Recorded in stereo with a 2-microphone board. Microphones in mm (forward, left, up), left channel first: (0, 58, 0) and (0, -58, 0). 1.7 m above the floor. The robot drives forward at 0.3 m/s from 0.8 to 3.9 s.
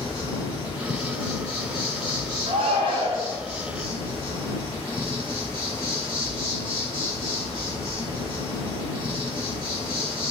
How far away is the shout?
About 0.5 m.